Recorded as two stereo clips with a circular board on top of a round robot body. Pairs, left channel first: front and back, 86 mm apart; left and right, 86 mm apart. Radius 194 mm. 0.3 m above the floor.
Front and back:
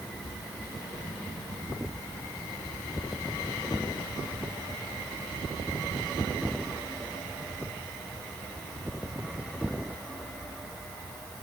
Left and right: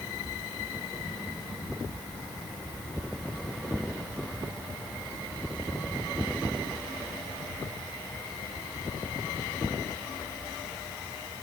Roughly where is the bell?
I don't hear a bell.